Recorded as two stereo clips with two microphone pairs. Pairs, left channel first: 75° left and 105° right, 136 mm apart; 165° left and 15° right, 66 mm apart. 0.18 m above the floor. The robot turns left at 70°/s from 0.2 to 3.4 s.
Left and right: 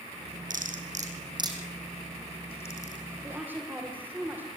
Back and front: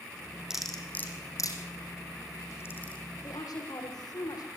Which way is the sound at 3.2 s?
170° right.